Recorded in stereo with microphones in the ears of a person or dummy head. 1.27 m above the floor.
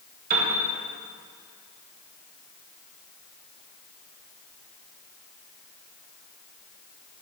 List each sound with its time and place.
0.3 s a piano: 45° right (ahead or behind), 1.8 m